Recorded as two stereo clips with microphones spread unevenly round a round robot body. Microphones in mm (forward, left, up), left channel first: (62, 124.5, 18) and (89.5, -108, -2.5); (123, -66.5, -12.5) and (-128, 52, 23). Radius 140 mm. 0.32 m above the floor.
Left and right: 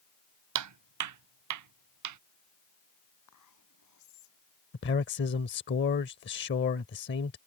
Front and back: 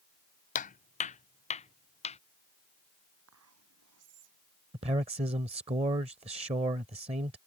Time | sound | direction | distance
0.6 | footsteps | 90° right | ?
3.3 | whispering | 115° left | ?
4.7 | a man speaking | 85° left | ?